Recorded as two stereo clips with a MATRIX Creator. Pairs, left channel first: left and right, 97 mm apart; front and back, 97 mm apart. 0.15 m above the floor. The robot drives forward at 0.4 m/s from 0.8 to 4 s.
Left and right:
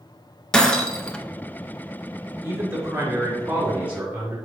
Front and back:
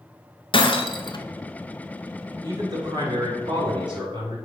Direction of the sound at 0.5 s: 10° left.